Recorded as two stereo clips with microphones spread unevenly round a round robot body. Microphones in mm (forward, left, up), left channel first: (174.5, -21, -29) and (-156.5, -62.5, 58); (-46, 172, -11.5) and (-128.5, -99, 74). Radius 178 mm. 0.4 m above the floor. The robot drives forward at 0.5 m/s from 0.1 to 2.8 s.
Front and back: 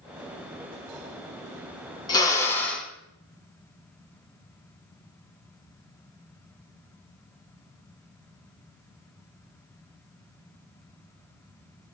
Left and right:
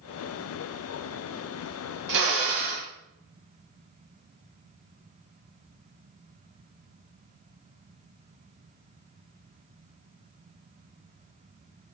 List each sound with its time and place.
2.1 s a drill: 65° right, 2 m; by 2.9 s 75° right, 2 m